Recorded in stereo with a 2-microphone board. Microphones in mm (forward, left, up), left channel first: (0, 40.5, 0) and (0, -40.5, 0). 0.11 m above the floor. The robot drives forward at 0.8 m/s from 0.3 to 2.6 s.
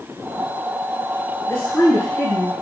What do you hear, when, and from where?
1.5 s a woman speaking: 30° left (ahead or behind), 1.5 m; by 2.5 s 25° left (ahead or behind), 1.7 m